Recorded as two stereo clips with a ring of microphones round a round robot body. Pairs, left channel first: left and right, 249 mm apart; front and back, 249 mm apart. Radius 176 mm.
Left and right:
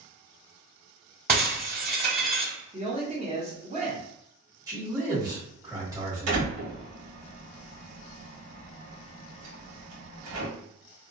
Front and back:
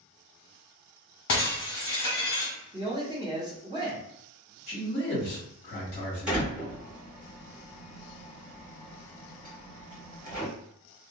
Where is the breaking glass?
40° right, 1.2 m.